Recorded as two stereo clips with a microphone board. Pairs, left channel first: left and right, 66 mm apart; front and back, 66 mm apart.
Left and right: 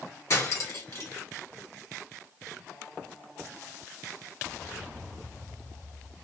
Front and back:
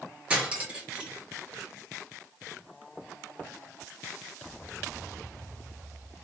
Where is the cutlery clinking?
115° left, 1.3 m.